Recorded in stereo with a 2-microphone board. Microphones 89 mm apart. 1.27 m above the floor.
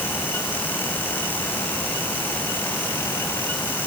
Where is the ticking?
I don't hear ticking.